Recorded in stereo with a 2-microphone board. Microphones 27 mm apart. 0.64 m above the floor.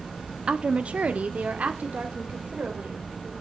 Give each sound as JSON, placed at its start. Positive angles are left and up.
{"t": 0.5, "sound": "a woman speaking", "side_deg": -35, "distance_m": 0.8}